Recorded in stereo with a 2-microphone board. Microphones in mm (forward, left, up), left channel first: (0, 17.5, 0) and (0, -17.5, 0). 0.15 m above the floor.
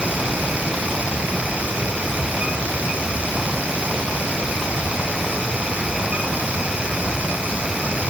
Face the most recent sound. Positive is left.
No sound to turn to.